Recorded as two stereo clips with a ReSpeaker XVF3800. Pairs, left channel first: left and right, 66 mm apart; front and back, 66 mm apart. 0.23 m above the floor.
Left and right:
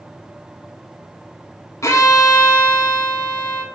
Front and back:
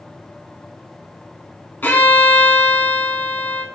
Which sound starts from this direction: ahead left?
A violin, at 1.8 s.